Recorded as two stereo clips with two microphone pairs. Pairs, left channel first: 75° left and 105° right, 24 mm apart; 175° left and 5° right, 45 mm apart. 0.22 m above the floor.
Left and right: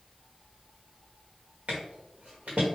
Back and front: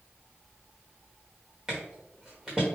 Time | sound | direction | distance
1.7 | footsteps | 85° right | 1.4 m